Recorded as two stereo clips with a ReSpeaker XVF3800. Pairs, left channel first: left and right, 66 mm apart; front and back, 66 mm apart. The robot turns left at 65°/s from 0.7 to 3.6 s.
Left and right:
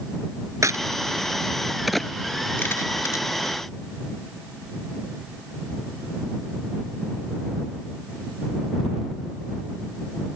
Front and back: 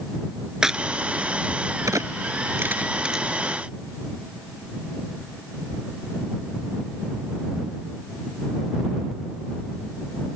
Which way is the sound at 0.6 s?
100° right.